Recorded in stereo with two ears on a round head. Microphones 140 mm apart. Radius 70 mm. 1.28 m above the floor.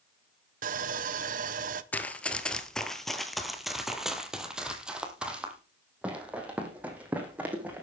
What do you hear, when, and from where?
0.6 s sawing: 55° right (ahead or behind), 0.9 m
1.9 s running footsteps: 10° left (ahead or behind), 1.3 m; by 7.8 s 10° right (ahead or behind), 4 m